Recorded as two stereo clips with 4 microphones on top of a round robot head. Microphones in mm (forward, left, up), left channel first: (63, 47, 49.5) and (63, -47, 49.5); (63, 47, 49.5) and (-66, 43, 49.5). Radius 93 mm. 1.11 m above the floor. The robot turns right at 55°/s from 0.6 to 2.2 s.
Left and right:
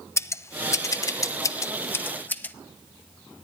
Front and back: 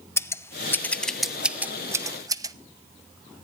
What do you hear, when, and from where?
0.2 s scissors: 60° left, 0.7 m; by 2.5 s 145° left, 0.7 m